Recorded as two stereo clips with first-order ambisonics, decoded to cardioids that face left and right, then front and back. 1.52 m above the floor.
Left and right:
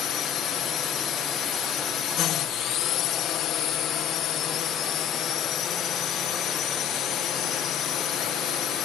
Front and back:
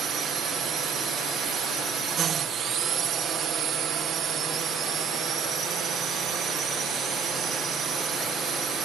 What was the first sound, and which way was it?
A drone, 125° left.